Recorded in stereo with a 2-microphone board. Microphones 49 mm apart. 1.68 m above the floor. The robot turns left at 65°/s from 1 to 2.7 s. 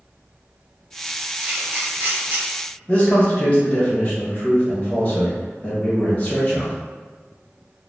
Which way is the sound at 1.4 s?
25° right (ahead or behind).